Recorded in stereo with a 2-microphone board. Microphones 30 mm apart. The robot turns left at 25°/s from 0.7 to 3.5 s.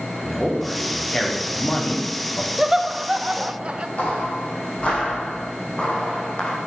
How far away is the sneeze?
I don't hear a sneeze.